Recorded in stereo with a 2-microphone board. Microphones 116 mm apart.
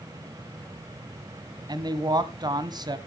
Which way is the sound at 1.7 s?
35° right (ahead or behind).